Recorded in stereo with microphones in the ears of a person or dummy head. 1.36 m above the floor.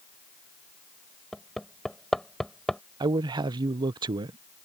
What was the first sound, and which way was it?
Hammering, centre (ahead or behind).